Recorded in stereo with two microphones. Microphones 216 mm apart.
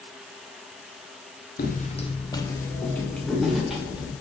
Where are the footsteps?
45° left (ahead or behind), 0.9 m; by 4.1 s 5° right (ahead or behind), 2.5 m.